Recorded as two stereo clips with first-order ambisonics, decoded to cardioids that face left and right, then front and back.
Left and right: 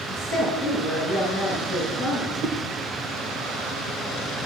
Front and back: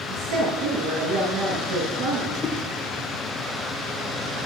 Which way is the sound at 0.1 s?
Straight behind.